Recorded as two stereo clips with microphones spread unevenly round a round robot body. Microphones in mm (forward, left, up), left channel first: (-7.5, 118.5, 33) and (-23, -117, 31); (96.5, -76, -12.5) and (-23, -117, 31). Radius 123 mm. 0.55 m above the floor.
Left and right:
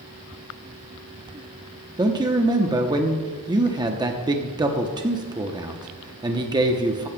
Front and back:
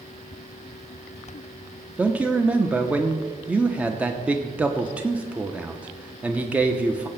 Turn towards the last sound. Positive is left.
turn(degrees=-50)